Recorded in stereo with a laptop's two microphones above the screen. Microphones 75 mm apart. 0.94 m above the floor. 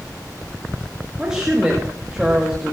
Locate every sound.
1.2 s a woman speaking: 10° right (ahead or behind), 1.4 m